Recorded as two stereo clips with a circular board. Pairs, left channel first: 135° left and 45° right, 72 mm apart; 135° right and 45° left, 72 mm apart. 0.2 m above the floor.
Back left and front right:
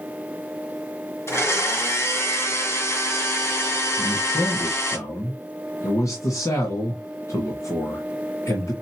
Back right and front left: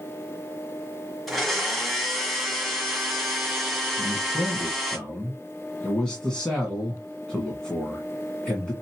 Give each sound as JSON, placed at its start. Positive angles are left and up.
{"t": 1.3, "sound": "a blender", "azimuth_deg": 135, "distance_m": 1.7}
{"t": 4.0, "sound": "a man speaking", "azimuth_deg": 145, "distance_m": 1.8}